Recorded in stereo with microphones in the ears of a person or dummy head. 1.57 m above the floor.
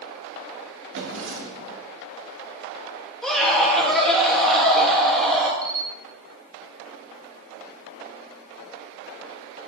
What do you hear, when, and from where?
0.9 s a drawer: 65° right (ahead or behind), 1.5 m
3.2 s a scream: centre (ahead or behind), 3 m
5.6 s a camera shutter: 20° right (ahead or behind), 1.2 m